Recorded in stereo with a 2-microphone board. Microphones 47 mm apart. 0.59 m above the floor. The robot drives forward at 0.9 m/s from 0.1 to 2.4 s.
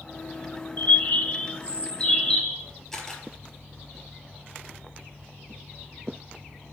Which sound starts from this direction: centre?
A camera shutter, at 2.9 s.